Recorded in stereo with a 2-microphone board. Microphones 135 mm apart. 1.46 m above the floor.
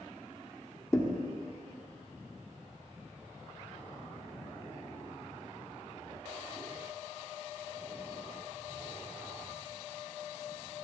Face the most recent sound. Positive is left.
turn(degrees=20)  # may be behind; listen again after turning